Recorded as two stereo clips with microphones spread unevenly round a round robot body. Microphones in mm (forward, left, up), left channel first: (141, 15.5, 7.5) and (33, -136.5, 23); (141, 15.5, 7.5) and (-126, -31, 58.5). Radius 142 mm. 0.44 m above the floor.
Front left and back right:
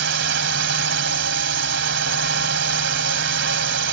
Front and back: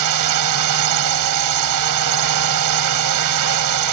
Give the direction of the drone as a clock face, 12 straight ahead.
5 o'clock.